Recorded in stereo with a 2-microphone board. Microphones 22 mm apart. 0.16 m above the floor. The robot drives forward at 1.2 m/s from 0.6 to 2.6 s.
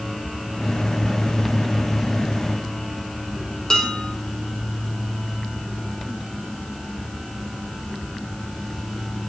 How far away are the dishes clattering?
About 3 m.